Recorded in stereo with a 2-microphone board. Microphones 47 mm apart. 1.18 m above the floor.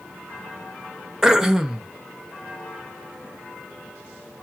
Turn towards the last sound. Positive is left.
turn(degrees=-10)  # may be behind; listen again after turning